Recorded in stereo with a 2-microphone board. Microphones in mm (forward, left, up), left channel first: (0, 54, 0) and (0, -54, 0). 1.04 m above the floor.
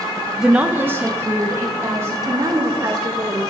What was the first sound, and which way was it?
A woman speaking, centre (ahead or behind).